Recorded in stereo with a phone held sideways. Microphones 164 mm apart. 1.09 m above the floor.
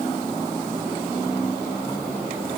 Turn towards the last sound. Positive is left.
No sound to turn to.